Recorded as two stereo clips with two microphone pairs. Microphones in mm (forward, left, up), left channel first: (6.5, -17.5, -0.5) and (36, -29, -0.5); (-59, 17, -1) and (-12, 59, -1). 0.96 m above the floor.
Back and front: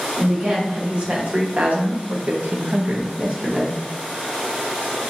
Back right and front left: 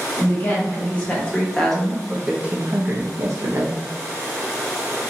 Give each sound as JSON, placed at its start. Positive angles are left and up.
{"t": 0.2, "sound": "a woman speaking", "azimuth_deg": -80, "distance_m": 1.4}